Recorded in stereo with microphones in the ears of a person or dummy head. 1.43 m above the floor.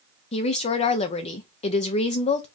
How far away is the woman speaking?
About 0.6 m.